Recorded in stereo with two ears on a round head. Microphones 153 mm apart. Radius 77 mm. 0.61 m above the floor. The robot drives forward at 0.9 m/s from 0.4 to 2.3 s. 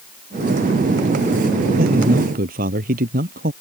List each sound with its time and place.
1.8 s a man speaking: 55° right (ahead or behind)